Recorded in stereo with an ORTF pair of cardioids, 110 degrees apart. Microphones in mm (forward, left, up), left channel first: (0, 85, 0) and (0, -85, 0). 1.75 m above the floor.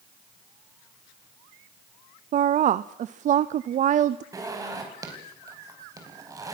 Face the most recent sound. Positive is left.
turn(degrees=-20)